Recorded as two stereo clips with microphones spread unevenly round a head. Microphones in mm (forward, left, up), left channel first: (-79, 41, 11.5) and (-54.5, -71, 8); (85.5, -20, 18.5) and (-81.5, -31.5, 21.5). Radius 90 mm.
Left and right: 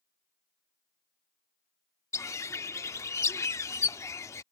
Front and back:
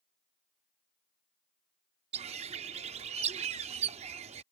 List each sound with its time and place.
2.1 s a bird: 150° left